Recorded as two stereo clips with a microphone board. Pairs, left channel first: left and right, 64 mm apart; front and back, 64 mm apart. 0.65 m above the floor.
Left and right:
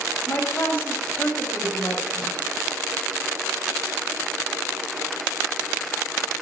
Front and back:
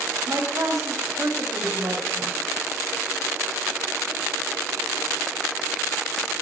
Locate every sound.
0.3 s a woman speaking: 145° left, 4 m